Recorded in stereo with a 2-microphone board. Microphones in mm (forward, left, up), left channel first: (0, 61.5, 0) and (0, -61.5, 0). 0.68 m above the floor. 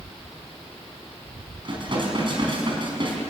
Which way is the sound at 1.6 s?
45° right (ahead or behind).